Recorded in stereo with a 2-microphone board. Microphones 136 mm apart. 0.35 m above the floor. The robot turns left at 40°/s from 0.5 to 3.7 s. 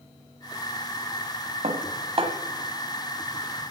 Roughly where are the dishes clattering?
Right.